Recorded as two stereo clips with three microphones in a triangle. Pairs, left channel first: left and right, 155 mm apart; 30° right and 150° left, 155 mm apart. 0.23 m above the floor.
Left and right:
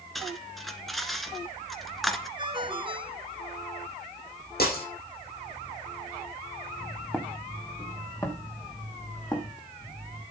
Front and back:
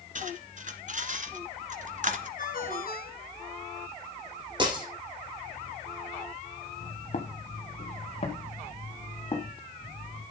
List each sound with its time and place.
0.1 s cutlery clinking: straight behind, 1.6 m
2.4 s a ringtone: 35° right, 2 m
4.6 s breaking glass: 90° left, 7.5 m
6.8 s footsteps: straight ahead, 2.5 m; by 10.2 s 25° left, 5 m